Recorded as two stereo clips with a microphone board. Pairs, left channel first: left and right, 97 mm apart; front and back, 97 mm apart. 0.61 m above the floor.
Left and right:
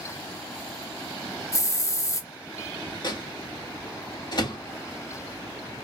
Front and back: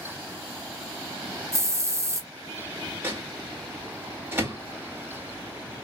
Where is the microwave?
115° left, 1.2 m.